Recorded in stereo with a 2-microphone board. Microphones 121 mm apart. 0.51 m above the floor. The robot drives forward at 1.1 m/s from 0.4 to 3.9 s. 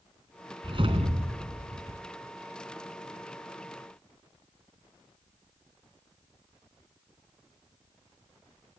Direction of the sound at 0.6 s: 45° right (ahead or behind).